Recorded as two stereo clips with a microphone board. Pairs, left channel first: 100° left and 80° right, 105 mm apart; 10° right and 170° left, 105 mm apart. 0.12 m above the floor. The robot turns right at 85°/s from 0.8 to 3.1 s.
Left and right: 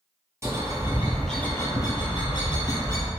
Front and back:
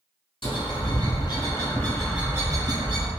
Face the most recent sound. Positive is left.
turn(degrees=170)